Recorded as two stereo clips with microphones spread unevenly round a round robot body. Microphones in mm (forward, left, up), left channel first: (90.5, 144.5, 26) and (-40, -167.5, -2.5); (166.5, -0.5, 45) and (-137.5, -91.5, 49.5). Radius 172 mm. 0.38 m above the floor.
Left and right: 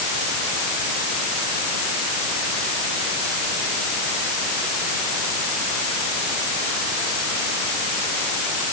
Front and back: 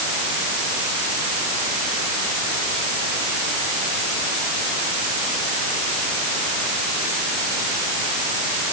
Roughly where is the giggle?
No giggle in this recording.